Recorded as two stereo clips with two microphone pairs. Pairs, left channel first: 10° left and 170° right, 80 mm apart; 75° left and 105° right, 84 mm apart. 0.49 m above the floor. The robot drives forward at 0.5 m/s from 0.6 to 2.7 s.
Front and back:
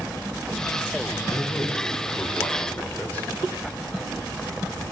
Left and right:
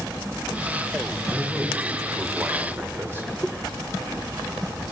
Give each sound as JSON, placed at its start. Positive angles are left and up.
{"t": 1.3, "sound": "a man speaking", "azimuth_deg": -35, "distance_m": 2.0}